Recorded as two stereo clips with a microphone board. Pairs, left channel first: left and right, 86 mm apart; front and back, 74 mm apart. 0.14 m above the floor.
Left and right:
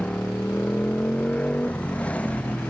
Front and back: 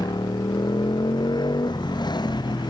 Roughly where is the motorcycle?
Ahead.